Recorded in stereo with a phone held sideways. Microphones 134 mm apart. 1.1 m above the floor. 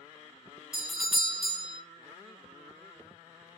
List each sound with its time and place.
0.7 s a doorbell: 5° right (ahead or behind), 0.5 m